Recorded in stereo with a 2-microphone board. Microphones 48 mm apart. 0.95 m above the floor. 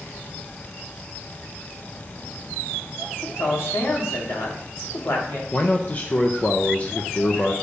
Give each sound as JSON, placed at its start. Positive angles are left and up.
{"t": 3.2, "sound": "a man speaking", "side_deg": 65, "distance_m": 2.5}
{"t": 5.5, "sound": "a man speaking", "side_deg": 35, "distance_m": 0.6}